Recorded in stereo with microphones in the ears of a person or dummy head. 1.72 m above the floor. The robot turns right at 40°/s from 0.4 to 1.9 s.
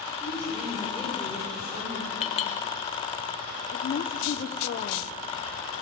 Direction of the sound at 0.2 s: 170° left.